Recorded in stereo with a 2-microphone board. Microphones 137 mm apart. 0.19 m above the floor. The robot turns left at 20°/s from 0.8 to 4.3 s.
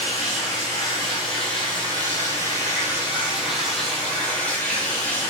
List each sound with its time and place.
0.0 s running water: 120° right, 4 m; by 5.3 s 170° left, 4 m